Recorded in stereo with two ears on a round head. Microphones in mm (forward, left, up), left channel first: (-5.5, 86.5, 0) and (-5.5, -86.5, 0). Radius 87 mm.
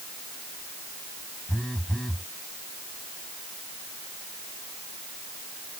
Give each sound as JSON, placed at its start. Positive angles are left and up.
{"t": 1.5, "sound": "a phone buzzing", "side_deg": 5}